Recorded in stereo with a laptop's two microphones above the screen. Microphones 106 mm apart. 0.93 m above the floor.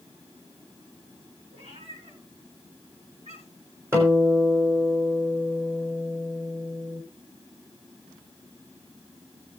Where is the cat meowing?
75° right (ahead or behind), 6 m; by 3.7 s 85° right, 6.5 m.